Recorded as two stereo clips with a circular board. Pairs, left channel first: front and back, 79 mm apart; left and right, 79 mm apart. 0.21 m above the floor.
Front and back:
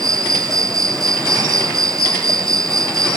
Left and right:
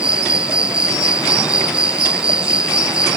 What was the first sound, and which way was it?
An insect, 165° right.